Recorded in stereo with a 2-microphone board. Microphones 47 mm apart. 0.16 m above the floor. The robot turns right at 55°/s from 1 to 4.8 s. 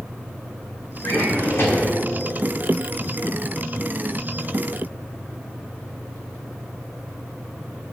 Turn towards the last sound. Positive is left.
turn(degrees=-70)